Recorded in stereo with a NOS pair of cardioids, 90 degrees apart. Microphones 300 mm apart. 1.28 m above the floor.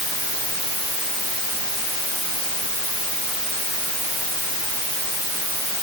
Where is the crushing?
No crushing in this recording.